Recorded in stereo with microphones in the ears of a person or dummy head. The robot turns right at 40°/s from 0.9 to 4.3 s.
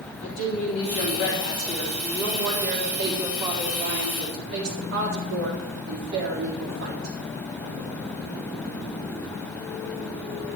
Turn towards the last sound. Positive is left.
turn(degrees=-110)